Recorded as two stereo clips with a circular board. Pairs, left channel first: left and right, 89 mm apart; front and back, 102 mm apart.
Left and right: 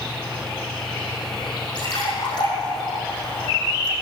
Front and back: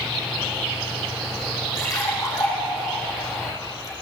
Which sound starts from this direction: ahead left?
A splash, at 1.8 s.